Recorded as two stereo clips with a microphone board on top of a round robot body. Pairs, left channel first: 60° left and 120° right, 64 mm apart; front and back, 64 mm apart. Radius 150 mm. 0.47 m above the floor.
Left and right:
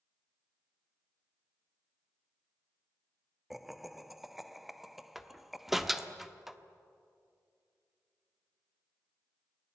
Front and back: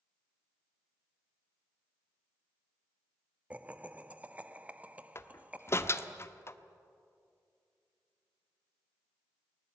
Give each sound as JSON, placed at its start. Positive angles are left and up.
{"t": 3.5, "sound": "laughter", "azimuth_deg": 155, "distance_m": 1.2}
{"t": 5.2, "sound": "a door slam", "azimuth_deg": -35, "distance_m": 1.3}